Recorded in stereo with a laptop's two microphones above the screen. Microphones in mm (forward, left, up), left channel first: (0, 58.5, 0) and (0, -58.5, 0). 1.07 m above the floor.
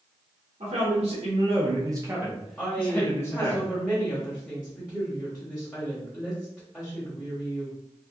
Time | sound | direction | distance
0.6 | a man speaking | 70° right (ahead or behind) | 1.0 m
2.6 | a woman speaking | 10° left (ahead or behind) | 1.1 m